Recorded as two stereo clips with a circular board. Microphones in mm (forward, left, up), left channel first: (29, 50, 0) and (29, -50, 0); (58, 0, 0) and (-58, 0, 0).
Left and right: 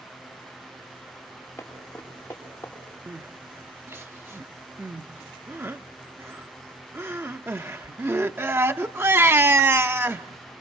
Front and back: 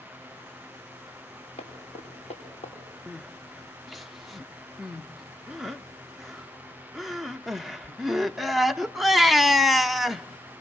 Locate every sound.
1.6 s running footsteps: 20° left, 8 m
3.1 s crying: 90° right, 0.6 m